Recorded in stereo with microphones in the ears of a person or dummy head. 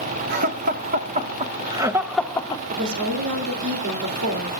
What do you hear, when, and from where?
0.3 s laughter: 55° right (ahead or behind), 1.6 m; by 2.6 s 25° left (ahead or behind), 0.8 m
2.7 s a woman speaking: 70° right (ahead or behind), 2.5 m